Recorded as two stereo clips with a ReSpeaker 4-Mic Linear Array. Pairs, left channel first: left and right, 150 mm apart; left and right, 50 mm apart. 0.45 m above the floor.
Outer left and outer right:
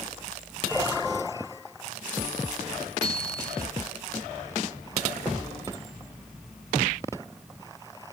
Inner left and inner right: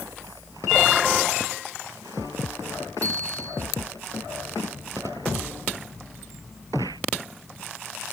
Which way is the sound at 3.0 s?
80° right.